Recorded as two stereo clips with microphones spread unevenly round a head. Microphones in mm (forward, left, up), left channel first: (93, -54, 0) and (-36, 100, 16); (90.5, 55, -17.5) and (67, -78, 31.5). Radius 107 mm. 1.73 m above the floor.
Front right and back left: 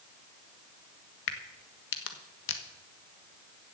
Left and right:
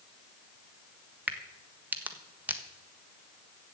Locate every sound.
1.3 s a crack: 35° right, 1.4 m